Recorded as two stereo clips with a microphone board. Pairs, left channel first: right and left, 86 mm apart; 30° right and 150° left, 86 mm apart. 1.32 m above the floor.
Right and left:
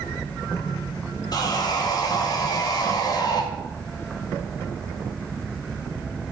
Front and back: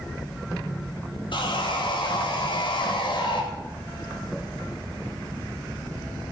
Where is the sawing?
50° right, 2 m.